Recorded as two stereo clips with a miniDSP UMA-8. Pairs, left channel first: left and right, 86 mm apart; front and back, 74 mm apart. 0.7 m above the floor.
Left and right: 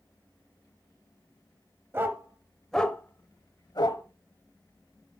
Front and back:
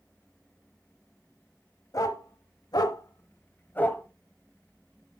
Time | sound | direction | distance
1.9 | a dog barking | 30° right | 1.1 m